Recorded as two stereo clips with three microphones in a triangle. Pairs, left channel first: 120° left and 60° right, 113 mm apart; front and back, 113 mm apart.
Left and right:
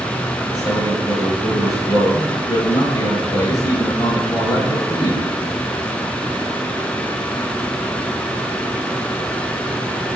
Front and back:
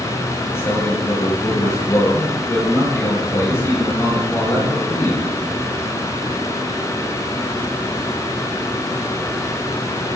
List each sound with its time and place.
0.5 s a man speaking: 65° left, 4.5 m